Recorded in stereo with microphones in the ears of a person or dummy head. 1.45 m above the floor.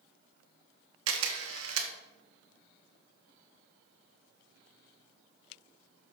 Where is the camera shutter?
75° right (ahead or behind), 1.2 m.